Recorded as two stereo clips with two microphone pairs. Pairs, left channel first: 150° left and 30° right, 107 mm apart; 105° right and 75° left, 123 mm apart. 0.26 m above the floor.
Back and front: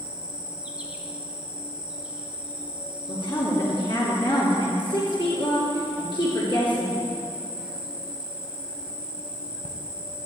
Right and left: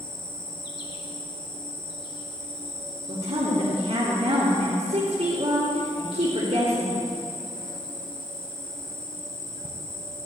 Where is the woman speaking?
110° left, 3 m.